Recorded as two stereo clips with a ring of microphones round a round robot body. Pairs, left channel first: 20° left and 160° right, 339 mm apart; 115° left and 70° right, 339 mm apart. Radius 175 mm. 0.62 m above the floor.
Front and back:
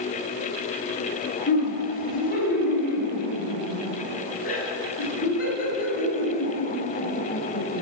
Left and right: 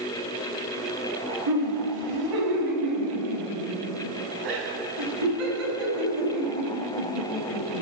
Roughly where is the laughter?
Ahead right.